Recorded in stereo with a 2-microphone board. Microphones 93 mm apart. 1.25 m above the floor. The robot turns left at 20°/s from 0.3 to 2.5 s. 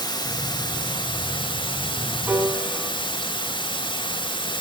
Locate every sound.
0.0 s running water: 125° left, 3.5 m; by 4.6 s 85° left, 3.5 m
2.3 s a piano: 20° right (ahead or behind), 3.5 m; by 2.9 s 15° right (ahead or behind), 3.5 m